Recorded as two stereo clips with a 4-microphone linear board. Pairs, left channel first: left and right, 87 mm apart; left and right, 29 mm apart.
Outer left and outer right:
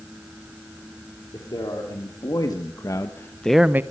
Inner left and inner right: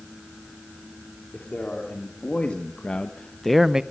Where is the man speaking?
50° left (ahead or behind), 3.5 m; by 3.8 s 25° right (ahead or behind), 0.8 m.